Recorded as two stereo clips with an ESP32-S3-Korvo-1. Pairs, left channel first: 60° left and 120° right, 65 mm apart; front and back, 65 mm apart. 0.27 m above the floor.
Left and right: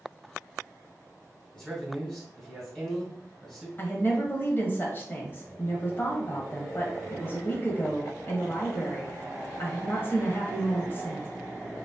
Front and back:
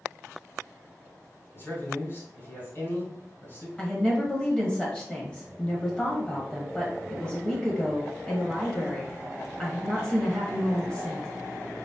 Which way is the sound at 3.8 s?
60° left.